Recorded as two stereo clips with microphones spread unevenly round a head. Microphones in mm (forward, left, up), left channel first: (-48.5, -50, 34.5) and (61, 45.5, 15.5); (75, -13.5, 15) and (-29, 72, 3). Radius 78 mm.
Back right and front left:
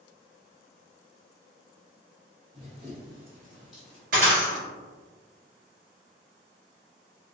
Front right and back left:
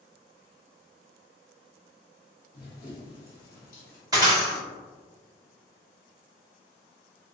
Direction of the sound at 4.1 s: 80° left.